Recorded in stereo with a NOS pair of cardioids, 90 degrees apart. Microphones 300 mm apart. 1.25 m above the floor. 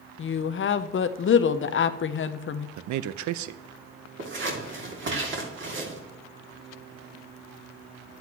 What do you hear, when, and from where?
0.2 s a woman speaking: 40° left, 0.7 m
2.8 s a man speaking: 70° right, 0.6 m
4.2 s scissors: 40° right, 2.5 m